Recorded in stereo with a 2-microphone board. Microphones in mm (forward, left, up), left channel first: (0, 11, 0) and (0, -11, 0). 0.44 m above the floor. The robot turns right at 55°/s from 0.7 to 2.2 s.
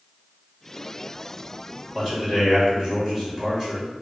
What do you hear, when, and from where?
1.9 s a man speaking: 20° right (ahead or behind), 1.8 m; by 4.0 s 10° right (ahead or behind), 1.8 m